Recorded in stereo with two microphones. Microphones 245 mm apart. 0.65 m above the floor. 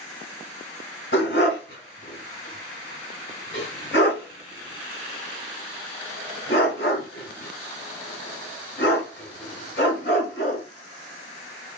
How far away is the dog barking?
About 1.9 m.